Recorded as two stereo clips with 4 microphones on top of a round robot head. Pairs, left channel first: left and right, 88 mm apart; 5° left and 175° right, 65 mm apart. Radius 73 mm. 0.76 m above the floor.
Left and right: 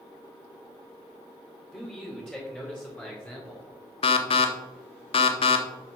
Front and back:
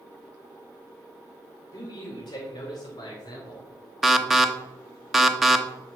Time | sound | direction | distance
1.7 | a man speaking | 10° left | 3 m
4.0 | an alarm | 100° left | 1.0 m